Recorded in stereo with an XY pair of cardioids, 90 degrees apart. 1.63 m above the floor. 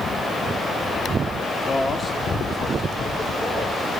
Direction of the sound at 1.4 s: 45° left.